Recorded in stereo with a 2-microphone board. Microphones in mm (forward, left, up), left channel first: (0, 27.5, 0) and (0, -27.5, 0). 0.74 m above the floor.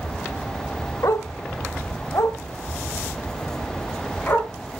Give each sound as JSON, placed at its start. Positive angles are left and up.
{"t": 1.0, "sound": "a dog barking", "side_deg": 70, "distance_m": 0.9}